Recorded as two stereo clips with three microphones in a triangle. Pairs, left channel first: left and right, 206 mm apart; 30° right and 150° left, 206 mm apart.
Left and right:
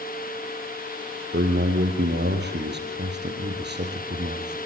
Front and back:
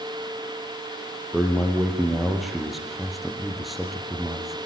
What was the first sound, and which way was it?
A man speaking, 120° right.